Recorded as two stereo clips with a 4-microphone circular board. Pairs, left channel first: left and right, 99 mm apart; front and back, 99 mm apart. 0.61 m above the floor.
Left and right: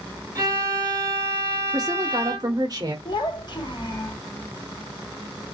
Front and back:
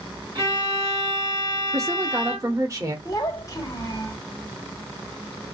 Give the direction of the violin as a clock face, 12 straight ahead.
5 o'clock.